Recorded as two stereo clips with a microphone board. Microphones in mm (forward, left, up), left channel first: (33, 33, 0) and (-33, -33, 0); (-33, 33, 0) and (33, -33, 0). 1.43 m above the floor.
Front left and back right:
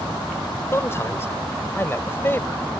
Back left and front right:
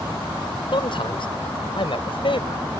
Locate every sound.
0.7 s a man speaking: 105° left; by 2.6 s 115° left